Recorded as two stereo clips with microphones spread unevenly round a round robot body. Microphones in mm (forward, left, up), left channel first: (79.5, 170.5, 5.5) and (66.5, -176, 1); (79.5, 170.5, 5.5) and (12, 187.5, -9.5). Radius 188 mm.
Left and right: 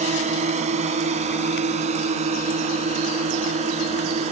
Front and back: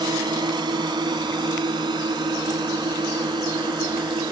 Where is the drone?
165° right.